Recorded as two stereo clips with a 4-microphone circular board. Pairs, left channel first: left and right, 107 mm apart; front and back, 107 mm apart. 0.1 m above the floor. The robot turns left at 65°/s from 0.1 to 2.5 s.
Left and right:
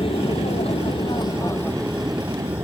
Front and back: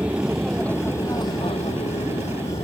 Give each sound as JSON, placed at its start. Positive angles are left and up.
{"t": 0.0, "sound": "an aircraft", "azimuth_deg": 105}